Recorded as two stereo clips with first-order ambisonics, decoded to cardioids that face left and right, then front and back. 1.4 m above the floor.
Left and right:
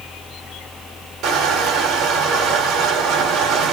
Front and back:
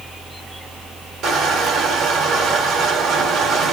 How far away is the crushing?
About 1.4 m.